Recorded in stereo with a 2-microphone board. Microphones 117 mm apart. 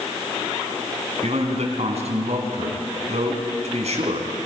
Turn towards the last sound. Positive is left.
turn(degrees=-70)  # may be behind; listen again after turning